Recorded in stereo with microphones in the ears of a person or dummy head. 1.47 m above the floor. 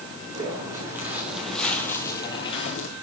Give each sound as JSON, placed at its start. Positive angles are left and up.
{"t": 0.3, "sound": "footsteps", "side_deg": -20, "distance_m": 4.0}